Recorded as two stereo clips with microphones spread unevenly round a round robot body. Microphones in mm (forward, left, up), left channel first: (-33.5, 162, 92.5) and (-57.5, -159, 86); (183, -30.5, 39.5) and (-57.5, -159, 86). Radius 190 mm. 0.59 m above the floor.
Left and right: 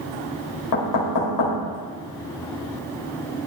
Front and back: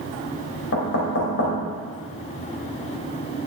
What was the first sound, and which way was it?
Knocking, 75° left.